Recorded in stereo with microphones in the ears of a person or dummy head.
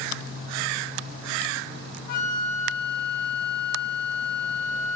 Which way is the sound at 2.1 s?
60° left (ahead or behind).